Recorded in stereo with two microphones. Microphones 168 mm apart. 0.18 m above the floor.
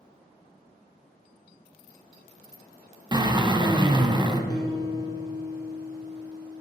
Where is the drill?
25° right (ahead or behind), 0.6 m.